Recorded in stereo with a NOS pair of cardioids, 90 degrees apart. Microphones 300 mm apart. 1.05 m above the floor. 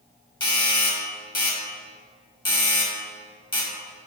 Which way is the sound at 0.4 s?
15° left.